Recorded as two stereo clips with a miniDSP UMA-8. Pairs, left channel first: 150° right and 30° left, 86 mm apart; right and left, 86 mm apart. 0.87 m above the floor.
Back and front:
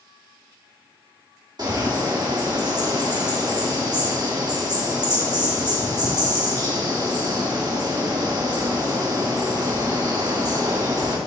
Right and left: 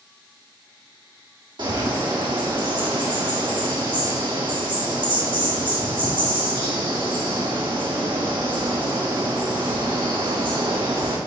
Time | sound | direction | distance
1.6 | a bird | 70° left | 2 m